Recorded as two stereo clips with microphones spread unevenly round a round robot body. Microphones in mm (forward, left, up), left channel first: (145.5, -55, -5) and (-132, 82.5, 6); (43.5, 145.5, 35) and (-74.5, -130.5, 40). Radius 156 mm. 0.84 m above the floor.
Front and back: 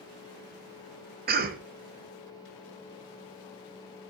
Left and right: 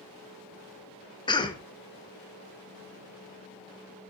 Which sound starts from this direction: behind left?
A cough, at 1.3 s.